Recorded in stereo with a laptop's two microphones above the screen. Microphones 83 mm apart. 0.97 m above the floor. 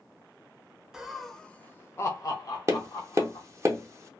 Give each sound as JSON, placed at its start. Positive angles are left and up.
{"t": 0.9, "sound": "laughter", "side_deg": -10, "distance_m": 0.7}
{"t": 2.7, "sound": "tapping", "side_deg": -35, "distance_m": 0.5}